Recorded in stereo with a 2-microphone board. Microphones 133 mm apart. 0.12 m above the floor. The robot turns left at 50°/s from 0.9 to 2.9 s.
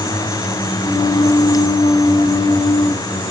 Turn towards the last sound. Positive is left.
No sound to turn to.